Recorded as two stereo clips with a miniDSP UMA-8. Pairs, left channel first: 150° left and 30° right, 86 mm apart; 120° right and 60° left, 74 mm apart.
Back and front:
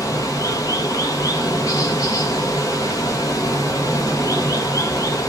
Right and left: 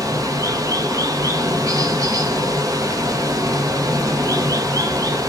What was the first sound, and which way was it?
Running water, 100° left.